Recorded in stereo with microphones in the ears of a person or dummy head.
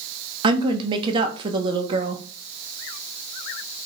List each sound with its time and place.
0.4 s a woman speaking: 30° right (ahead or behind), 0.9 m